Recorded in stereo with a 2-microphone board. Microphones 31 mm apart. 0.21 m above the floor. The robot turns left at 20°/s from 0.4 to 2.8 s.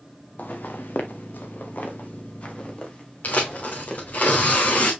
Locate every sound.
0.4 s footsteps: 70° left (ahead or behind), 1.8 m; by 4.2 s 30° left (ahead or behind), 3.5 m
3.2 s tearing paper: 65° left (ahead or behind), 2.5 m